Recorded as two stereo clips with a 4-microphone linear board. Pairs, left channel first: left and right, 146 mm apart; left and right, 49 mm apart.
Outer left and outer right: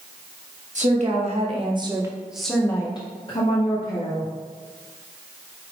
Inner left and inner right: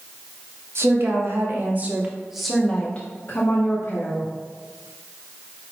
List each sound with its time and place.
0.8 s a woman speaking: 55° right (ahead or behind), 1.2 m; by 4.3 s 60° left (ahead or behind), 1.3 m